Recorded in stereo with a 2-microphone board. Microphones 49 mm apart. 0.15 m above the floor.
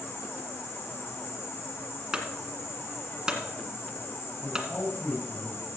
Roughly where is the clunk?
Centre.